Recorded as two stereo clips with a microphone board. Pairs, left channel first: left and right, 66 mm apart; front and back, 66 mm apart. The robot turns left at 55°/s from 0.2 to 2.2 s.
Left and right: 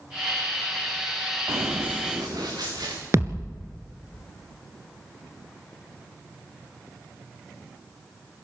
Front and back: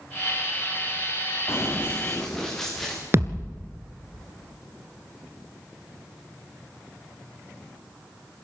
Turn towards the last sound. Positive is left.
turn(degrees=-135)